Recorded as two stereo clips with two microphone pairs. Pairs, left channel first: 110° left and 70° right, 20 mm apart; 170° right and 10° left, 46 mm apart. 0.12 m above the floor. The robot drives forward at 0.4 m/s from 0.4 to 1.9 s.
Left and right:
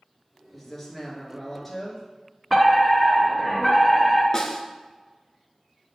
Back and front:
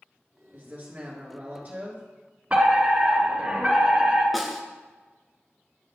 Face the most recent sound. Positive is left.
turn(degrees=100)